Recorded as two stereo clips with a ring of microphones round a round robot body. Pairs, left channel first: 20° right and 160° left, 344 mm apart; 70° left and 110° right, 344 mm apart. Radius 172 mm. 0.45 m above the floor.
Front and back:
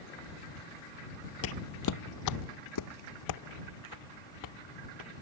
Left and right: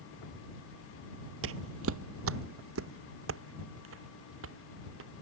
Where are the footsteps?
65° right; by 5.1 s 60° right.